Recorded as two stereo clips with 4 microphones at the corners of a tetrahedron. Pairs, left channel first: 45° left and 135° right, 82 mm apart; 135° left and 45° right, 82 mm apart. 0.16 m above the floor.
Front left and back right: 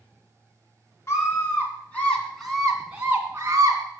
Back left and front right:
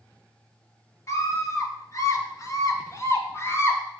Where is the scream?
90° left, 2.5 m; by 3.8 s 175° right, 2 m.